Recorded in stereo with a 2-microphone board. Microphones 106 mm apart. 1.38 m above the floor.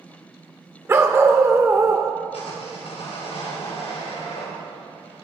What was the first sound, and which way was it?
A dog barking, 25° right (ahead or behind).